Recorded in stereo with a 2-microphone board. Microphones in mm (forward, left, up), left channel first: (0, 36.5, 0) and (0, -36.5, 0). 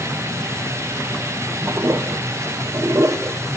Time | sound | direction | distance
1.7 | a toilet flushing | 40° right (ahead or behind) | 0.6 m